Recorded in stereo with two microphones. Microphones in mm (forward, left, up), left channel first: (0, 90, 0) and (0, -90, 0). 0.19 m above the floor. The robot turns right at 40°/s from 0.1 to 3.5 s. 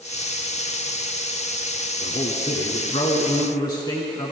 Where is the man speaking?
90° left, 1.5 m; by 4.3 s 150° left, 1.5 m.